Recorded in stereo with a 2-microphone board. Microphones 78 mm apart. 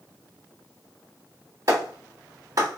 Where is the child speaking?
No child speaking in this recording.